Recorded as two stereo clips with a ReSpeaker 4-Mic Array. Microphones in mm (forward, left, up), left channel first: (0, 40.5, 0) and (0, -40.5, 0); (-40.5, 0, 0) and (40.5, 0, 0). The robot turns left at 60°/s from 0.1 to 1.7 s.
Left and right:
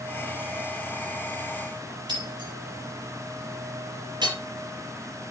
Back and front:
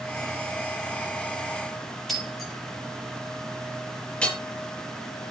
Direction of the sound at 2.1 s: 90° right.